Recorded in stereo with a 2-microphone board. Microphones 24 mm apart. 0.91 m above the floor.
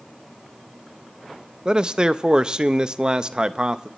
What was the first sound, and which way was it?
A man speaking, 35° right (ahead or behind).